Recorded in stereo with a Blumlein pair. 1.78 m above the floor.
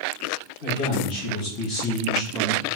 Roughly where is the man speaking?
Ahead left.